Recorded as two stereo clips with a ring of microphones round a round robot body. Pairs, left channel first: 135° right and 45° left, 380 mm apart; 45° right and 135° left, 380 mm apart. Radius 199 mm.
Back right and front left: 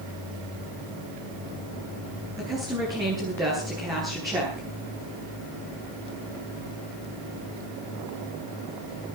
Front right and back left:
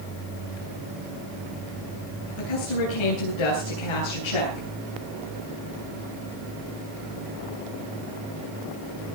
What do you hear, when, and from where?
2.4 s a woman speaking: 35° right, 9.5 m